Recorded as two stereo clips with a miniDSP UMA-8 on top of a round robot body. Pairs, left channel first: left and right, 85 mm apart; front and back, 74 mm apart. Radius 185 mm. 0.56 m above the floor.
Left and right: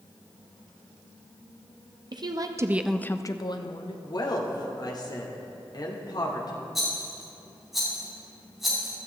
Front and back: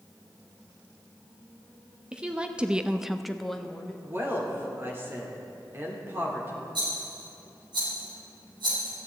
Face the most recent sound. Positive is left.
turn(degrees=180)